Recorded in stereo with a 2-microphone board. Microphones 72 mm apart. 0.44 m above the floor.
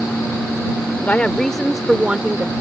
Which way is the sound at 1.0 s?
25° left (ahead or behind).